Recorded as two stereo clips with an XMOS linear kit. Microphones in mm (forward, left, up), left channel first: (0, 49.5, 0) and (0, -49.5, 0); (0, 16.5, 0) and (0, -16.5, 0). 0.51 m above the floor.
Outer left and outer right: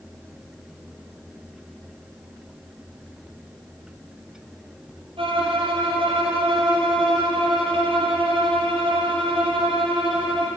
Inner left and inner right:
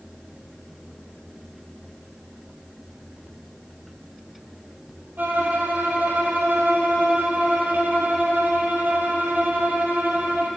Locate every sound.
5.2 s a violin: 70° right (ahead or behind), 2.5 m